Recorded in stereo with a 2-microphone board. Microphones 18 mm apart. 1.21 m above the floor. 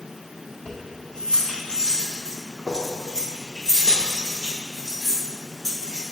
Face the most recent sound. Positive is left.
turn(degrees=15)  # may be behind; listen again after turning